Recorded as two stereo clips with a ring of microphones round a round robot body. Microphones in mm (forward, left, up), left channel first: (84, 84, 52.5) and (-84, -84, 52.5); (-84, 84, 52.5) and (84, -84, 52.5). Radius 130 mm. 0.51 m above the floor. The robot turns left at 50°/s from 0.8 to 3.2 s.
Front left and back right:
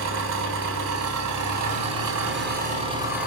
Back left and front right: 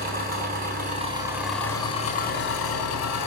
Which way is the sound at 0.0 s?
100° right.